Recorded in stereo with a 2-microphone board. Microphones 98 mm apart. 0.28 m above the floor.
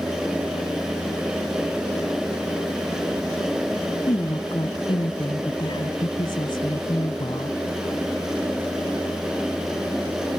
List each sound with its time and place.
4.1 s a woman speaking: 55° left (ahead or behind)